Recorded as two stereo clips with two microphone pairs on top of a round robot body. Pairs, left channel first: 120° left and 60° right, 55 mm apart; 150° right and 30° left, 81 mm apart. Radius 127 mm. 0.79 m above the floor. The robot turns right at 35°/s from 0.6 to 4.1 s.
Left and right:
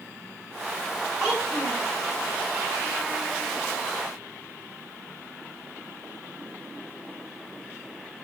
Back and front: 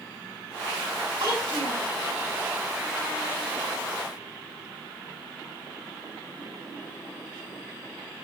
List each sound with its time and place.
1.2 s a child speaking: 30° left, 8.5 m; by 1.9 s 55° left, 8.5 m